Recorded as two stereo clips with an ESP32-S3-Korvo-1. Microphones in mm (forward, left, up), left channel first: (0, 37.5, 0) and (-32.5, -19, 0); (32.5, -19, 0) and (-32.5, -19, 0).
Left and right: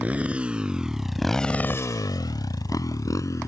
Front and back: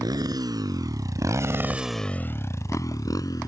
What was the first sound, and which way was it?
A motorcycle, 170° left.